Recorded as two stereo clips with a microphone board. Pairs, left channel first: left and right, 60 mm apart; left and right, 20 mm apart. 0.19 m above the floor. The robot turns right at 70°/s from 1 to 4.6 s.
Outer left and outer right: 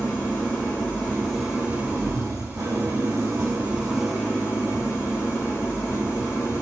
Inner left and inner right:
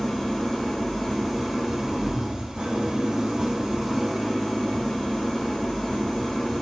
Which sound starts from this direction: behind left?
An engine running, at 0.0 s.